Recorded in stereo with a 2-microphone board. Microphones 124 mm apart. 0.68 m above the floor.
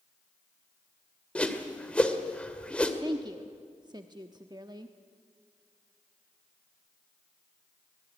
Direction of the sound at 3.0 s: 35° right (ahead or behind).